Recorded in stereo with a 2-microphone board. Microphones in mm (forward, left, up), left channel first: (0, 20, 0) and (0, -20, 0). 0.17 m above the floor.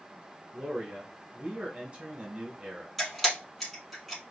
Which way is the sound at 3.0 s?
5° left (ahead or behind).